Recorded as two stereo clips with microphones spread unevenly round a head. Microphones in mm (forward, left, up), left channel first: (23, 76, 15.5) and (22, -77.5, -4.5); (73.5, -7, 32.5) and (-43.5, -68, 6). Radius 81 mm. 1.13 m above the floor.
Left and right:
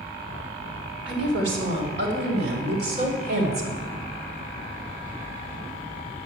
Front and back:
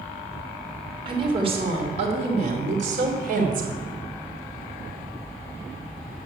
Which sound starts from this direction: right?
A woman speaking, at 1.1 s.